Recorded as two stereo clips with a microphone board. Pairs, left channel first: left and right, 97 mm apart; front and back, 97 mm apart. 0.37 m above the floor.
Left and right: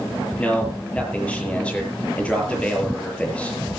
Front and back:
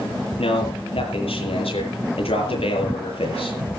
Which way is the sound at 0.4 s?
10° left.